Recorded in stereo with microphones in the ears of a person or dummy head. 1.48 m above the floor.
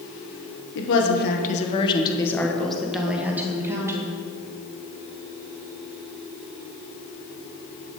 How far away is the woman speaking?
About 1.3 m.